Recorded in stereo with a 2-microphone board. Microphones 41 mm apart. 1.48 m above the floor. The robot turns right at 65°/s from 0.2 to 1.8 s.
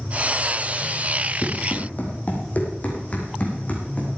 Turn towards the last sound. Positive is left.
turn(degrees=35)  # may be behind; listen again after turning